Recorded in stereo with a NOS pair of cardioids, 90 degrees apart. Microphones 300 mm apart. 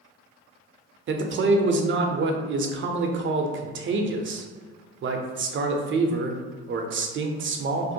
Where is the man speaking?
45° right, 0.5 m.